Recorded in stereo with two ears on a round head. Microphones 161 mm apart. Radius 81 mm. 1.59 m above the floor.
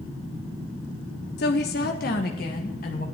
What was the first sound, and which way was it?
A woman speaking, 60° left (ahead or behind).